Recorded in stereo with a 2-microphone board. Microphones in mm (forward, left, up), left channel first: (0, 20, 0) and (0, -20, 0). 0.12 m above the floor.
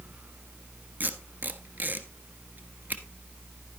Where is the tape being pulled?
45° right (ahead or behind), 1.2 m.